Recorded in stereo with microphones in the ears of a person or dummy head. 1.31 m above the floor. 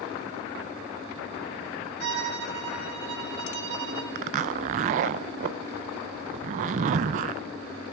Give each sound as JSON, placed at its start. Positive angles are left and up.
{"t": 2.0, "sound": "a violin", "side_deg": -70, "distance_m": 1.9}
{"t": 4.2, "sound": "a zipper", "side_deg": -40, "distance_m": 0.5}